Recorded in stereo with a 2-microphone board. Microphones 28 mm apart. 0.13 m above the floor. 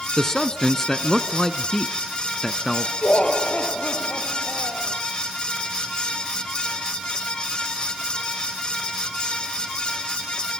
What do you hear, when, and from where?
0.2 s a man speaking: 20° left (ahead or behind), 1.1 m
3.0 s laughter: 60° left (ahead or behind), 2.0 m